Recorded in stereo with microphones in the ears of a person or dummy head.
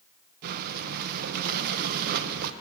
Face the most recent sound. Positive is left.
turn(degrees=-55)  # may be behind; listen again after turning